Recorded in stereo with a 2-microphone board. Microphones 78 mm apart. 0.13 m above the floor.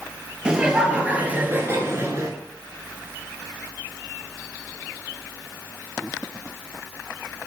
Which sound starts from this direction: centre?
Laughter, at 0.5 s.